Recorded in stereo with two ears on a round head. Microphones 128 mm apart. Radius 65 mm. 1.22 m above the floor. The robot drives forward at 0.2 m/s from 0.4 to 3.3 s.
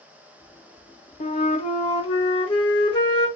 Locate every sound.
1.2 s a flute: 50° left (ahead or behind), 0.6 m; by 3.3 s 30° left (ahead or behind), 0.9 m